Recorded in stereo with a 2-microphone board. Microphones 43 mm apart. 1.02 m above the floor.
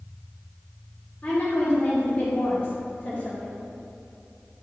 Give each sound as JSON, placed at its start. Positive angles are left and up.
{"t": 1.2, "sound": "a woman speaking", "side_deg": 35, "distance_m": 2.5}